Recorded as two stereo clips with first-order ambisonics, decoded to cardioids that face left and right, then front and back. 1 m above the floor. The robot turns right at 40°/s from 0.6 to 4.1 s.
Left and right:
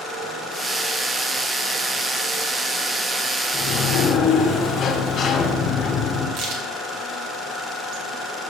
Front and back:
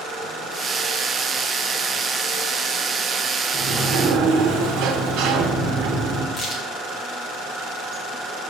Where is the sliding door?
125° left, 1.1 m; by 6.3 s 150° left, 1.1 m.